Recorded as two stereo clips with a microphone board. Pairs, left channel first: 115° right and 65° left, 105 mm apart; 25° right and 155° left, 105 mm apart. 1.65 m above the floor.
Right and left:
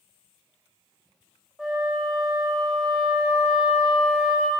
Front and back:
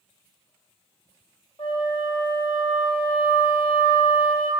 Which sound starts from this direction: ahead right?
A flute, at 1.6 s.